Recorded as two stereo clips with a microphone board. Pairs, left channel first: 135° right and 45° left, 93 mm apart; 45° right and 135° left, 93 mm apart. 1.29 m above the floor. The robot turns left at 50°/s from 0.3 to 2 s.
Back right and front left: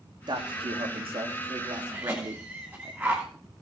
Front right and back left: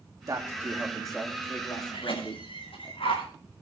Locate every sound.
0.3 s a man speaking: 80° left, 3 m; by 2.9 s 5° right, 3 m
1.9 s a cough: 25° right, 9.5 m; by 3.2 s 30° right, 9.5 m